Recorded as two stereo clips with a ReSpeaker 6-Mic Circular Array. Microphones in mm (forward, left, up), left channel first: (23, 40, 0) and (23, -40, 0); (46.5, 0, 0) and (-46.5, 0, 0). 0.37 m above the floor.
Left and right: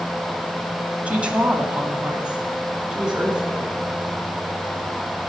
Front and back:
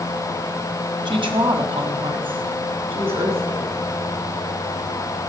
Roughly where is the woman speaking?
Behind.